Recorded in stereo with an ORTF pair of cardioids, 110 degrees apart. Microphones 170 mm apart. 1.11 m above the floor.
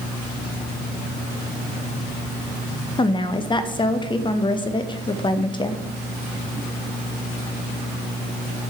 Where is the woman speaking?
30° left, 1.0 m.